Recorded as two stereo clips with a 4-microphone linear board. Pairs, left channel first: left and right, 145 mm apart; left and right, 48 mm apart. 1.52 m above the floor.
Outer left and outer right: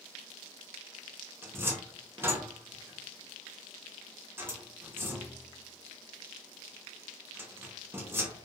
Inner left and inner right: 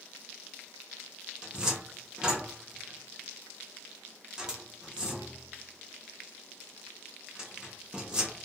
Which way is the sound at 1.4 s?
15° right (ahead or behind).